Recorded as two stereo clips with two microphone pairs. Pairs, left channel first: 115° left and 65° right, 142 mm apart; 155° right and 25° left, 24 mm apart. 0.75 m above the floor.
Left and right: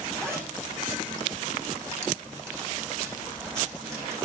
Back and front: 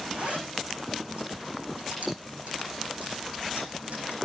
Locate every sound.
0.1 s a zipper: 5° left, 8 m